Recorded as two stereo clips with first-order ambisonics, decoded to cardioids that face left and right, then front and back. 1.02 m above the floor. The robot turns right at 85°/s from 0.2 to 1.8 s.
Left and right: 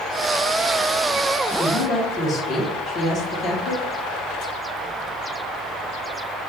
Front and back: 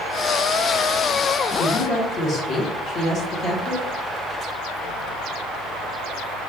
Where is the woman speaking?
20° left, 1.0 m; by 3.9 s 40° left, 1.0 m.